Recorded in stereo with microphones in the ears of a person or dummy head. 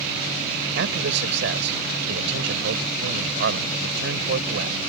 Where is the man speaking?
70° right (ahead or behind).